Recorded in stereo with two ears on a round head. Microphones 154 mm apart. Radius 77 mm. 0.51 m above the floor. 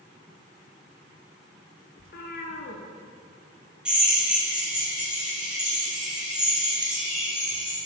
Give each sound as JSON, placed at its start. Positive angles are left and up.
{"t": 2.0, "sound": "a cat meowing", "side_deg": 55, "distance_m": 1.0}
{"t": 3.9, "sound": "a drill", "side_deg": -5, "distance_m": 2.5}